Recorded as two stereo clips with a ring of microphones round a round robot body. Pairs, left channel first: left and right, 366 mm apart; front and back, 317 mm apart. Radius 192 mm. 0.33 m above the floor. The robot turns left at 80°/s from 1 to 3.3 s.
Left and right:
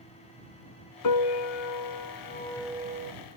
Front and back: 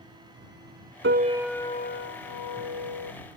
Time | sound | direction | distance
1.0 | a piano | 125° left | ?